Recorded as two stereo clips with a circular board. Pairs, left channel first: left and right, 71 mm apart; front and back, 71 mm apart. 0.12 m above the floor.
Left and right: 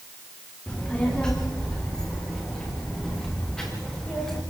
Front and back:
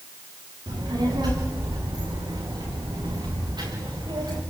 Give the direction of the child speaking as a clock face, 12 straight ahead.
6 o'clock.